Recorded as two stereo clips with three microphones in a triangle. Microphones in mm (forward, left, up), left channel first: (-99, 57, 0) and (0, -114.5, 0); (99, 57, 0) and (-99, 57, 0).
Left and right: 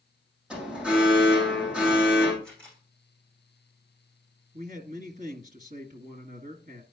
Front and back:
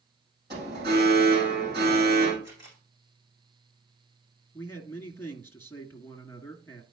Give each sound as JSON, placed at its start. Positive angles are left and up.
{"t": 0.5, "sound": "an alarm", "azimuth_deg": -145, "distance_m": 6.5}
{"t": 2.4, "sound": "a camera shutter", "azimuth_deg": -155, "distance_m": 6.0}
{"t": 4.5, "sound": "a man speaking", "azimuth_deg": -70, "distance_m": 1.9}